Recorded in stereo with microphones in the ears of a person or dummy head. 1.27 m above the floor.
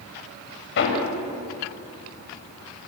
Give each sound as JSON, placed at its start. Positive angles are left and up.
{"t": 0.8, "sound": "hammering", "side_deg": 65, "distance_m": 5.5}